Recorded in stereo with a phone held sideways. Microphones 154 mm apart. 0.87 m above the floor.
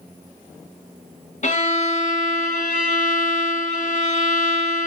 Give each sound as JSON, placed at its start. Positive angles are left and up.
{"t": 1.4, "sound": "a violin", "side_deg": 55, "distance_m": 0.7}